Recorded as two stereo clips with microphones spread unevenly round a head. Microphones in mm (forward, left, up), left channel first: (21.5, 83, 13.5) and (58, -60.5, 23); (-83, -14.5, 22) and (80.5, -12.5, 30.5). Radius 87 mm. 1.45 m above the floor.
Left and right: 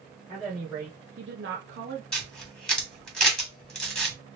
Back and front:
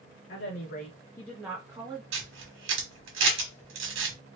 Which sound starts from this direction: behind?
A woman speaking, at 0.3 s.